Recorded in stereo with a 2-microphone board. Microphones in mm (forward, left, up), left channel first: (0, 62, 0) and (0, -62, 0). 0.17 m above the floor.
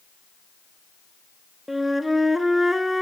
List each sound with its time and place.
1.7 s a flute: centre (ahead or behind), 0.8 m